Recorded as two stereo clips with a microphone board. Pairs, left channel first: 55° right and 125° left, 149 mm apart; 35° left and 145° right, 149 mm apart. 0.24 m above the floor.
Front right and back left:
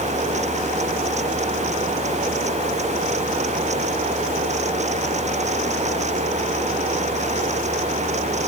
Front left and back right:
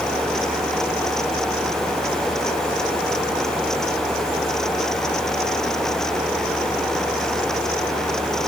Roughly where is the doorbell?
No doorbell in this recording.